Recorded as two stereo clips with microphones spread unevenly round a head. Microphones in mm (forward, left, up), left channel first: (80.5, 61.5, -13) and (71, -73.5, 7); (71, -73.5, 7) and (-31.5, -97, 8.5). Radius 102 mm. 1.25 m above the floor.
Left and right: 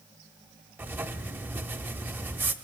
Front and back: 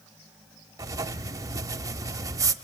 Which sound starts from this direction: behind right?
Writing, at 0.8 s.